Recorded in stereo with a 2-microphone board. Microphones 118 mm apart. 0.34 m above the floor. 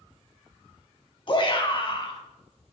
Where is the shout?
45° left (ahead or behind), 2 m.